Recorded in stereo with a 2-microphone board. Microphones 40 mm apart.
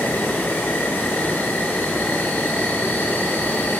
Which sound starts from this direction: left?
An insect, at 0.0 s.